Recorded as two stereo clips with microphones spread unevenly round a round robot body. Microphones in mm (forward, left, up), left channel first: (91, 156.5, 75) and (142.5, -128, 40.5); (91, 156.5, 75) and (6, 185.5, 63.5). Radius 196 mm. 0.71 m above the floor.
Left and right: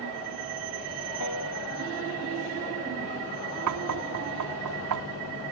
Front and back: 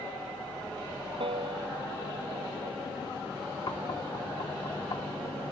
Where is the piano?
145° left.